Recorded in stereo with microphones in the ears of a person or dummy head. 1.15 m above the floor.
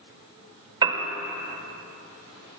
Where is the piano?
20° right (ahead or behind), 1.7 m.